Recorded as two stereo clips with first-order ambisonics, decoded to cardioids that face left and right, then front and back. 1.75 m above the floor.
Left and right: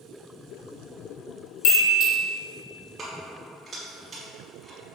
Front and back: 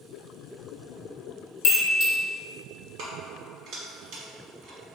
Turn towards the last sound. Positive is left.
turn(degrees=-155)